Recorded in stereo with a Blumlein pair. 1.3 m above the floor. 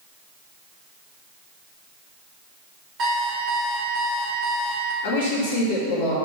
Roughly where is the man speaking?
Ahead left.